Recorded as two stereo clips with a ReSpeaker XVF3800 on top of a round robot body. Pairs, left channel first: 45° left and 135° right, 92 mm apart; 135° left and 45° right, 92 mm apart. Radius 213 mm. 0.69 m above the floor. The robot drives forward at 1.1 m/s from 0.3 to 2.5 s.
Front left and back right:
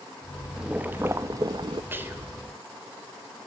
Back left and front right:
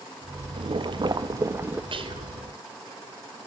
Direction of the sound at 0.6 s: 55° right.